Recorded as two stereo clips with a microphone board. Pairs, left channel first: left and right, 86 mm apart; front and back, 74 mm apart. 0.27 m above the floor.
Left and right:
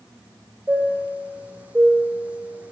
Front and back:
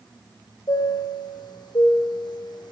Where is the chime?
15° right, 5.5 m.